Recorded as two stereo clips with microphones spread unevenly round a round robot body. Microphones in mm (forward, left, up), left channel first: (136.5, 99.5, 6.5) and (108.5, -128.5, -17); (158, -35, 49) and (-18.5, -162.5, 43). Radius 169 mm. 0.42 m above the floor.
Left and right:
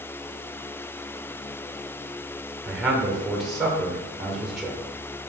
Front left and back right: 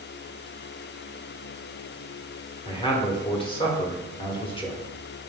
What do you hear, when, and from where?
2.6 s a man speaking: 15° right, 1.3 m